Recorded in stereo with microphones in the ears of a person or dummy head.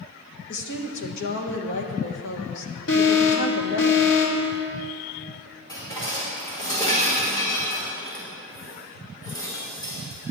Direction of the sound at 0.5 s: 60° left (ahead or behind).